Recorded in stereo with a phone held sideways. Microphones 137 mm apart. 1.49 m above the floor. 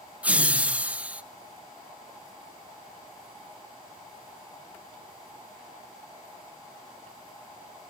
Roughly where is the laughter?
Centre.